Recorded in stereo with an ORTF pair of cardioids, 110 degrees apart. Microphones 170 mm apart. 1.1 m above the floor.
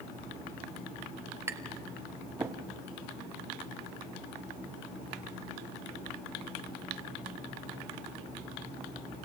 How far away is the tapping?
About 2 m.